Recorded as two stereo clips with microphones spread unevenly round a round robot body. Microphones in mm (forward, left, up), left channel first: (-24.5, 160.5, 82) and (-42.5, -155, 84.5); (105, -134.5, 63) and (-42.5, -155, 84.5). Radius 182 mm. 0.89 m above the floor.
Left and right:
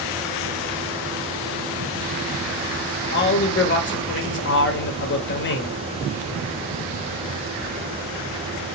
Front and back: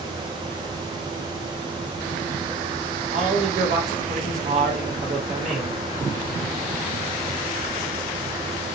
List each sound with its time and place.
3.1 s a man speaking: 140° left, 0.8 m